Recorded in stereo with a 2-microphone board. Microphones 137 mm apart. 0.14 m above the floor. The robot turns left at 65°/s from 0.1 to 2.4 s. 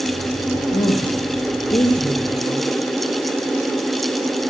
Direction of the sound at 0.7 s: 90° left.